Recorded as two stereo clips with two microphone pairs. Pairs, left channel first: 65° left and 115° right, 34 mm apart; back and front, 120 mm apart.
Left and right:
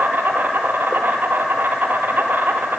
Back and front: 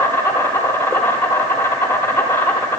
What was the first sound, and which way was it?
An insect, 110° right.